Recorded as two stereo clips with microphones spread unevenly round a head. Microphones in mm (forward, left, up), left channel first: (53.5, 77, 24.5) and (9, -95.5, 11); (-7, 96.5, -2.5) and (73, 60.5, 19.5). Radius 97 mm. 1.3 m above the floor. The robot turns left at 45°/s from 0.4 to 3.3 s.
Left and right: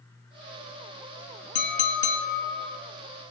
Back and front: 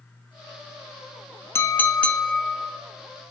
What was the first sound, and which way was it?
A clink, 90° left.